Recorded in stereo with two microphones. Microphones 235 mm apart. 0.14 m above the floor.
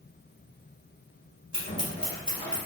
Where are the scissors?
35° left (ahead or behind), 1.6 m.